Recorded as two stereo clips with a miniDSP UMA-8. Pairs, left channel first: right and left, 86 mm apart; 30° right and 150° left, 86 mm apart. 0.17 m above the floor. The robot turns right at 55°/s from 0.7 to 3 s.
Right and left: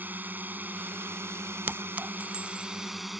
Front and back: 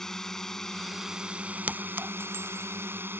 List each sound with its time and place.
0.0 s a drone: 50° left; by 3.2 s 175° left
1.7 s a clink: 110° left; by 2.7 s 165° left